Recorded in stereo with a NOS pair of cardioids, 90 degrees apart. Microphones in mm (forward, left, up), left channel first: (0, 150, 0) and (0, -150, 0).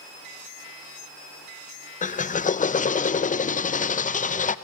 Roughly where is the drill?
Ahead left.